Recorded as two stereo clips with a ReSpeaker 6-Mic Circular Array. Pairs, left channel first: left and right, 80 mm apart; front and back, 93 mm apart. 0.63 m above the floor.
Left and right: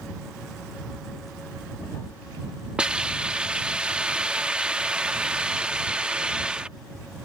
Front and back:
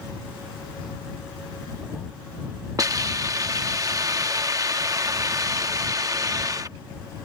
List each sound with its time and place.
2.8 s a hiss: 165° right